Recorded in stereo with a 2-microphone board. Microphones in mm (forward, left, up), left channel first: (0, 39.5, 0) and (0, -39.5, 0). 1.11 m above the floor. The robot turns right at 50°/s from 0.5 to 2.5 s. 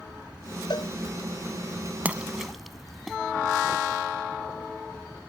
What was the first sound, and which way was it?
A cowbell, 70° left (ahead or behind).